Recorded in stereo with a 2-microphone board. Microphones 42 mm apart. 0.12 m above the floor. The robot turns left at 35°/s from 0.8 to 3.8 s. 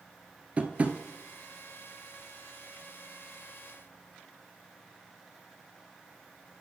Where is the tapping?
35° right (ahead or behind), 0.6 m; by 1.0 s 30° right (ahead or behind), 0.6 m.